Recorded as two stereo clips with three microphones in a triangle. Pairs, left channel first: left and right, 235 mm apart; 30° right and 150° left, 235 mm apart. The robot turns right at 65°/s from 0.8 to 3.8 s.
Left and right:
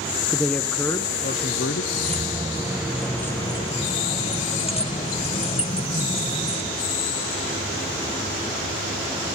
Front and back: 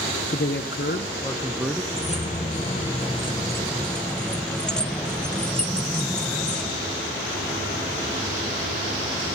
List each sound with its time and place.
0.3 s a man speaking: 5° left, 0.7 m; by 1.8 s 70° left, 0.7 m
1.9 s keys jangling: 70° right, 0.7 m; by 6.8 s 50° left, 0.7 m